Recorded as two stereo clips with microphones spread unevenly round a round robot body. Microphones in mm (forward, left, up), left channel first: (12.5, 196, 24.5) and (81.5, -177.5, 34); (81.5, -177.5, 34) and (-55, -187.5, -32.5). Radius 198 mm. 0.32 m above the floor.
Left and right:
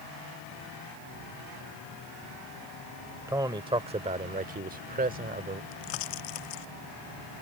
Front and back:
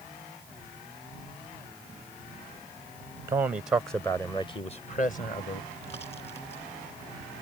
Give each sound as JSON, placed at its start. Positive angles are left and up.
{"t": 3.3, "sound": "a man speaking", "azimuth_deg": -160}
{"t": 5.7, "sound": "a pop", "azimuth_deg": 80}